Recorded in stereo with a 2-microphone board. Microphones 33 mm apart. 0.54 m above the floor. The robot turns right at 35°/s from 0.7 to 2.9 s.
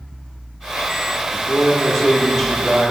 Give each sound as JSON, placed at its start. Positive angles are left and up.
{"t": 1.3, "sound": "a man speaking", "azimuth_deg": 150, "distance_m": 0.8}